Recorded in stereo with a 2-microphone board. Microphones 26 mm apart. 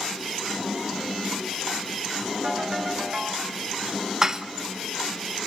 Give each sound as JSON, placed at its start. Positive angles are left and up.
{"t": 2.4, "sound": "a ringtone", "side_deg": -45, "distance_m": 4.5}
{"t": 4.2, "sound": "dishes clattering", "side_deg": -25, "distance_m": 0.9}